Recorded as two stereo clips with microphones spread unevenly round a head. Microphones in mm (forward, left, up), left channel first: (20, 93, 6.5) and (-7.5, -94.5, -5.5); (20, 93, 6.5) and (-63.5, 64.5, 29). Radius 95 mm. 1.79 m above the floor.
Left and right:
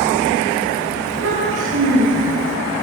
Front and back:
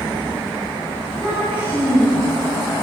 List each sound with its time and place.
1.0 s a child speaking: 80° right, 7.5 m